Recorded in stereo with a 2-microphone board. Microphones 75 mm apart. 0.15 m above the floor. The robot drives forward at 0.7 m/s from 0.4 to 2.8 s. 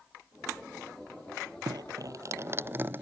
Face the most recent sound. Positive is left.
turn(degrees=-30)  # may be behind; listen again after turning